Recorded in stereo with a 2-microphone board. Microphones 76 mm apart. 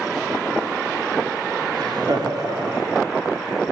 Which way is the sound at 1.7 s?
60° right (ahead or behind).